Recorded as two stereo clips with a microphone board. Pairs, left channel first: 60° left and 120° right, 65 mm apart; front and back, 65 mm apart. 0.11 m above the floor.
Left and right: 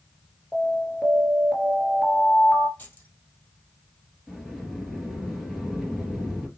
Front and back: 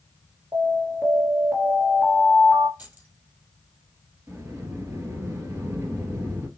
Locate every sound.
0.5 s an alarm: 145° left, 1.8 m
2.8 s keys jangling: 120° left, 2.5 m
4.3 s a sliding door: 150° left, 2 m